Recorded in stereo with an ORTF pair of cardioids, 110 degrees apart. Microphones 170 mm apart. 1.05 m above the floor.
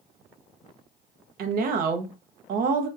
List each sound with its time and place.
1.4 s a woman speaking: 60° right, 0.8 m